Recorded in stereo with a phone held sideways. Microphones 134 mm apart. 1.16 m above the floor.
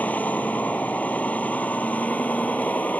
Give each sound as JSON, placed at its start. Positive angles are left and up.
{"t": 0.0, "sound": "a vehicle", "side_deg": 10}